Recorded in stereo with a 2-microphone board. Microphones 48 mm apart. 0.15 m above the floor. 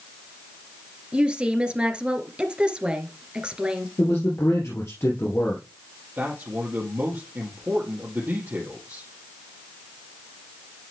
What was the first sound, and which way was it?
A woman speaking, 20° right (ahead or behind).